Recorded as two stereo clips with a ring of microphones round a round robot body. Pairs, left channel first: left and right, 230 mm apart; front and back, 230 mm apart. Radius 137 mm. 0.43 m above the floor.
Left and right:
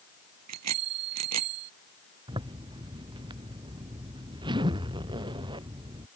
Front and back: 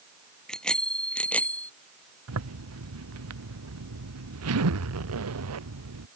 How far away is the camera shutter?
I don't hear a camera shutter.